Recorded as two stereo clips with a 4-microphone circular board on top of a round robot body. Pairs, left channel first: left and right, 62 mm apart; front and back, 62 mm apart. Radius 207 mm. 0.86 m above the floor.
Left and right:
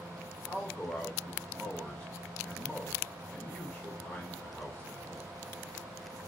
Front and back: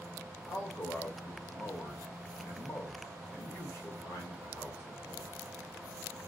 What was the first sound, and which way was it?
A man speaking, 25° left.